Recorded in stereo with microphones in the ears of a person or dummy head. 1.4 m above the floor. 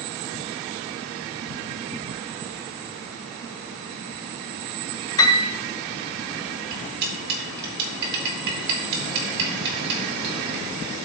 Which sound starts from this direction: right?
Cutlery clinking, at 6.7 s.